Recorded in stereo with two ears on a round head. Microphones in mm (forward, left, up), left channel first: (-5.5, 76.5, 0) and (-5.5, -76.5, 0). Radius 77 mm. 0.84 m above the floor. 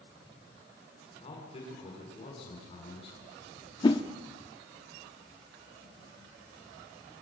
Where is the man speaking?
35° left (ahead or behind), 7 m.